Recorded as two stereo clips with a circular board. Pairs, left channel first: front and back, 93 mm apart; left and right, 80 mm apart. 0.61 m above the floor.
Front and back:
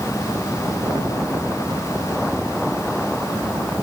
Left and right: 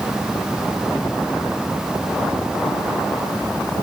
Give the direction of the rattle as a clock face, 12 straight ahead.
No rattle in this recording.